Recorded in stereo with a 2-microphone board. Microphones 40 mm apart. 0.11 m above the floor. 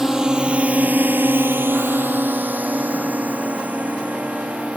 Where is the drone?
15° right (ahead or behind); by 4.8 s 30° right (ahead or behind).